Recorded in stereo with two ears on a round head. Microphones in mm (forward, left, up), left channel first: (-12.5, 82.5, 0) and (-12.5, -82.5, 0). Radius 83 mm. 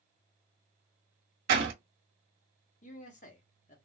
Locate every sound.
1.5 s a door slam: 65° right (ahead or behind), 1.3 m
2.8 s a man speaking: 40° left (ahead or behind), 0.9 m